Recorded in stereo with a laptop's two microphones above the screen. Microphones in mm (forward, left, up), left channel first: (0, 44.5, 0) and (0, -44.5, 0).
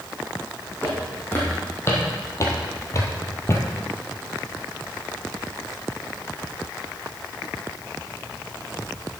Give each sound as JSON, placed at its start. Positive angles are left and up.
{"t": 0.8, "sound": "footsteps", "side_deg": 20, "distance_m": 2.5}